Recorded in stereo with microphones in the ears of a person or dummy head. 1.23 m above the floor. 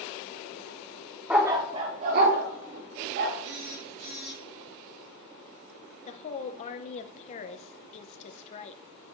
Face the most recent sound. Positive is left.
turn(degrees=40)  # may be behind; listen again after turning